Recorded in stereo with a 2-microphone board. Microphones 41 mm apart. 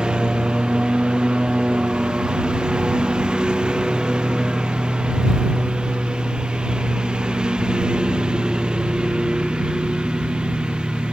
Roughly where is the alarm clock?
I don't hear an alarm clock.